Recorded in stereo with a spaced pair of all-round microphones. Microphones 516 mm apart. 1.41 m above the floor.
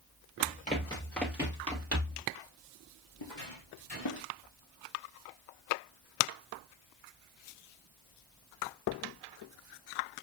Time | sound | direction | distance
0.4 | running footsteps | 20° left (ahead or behind) | 2 m
3.2 | footsteps | 60° left (ahead or behind) | 3 m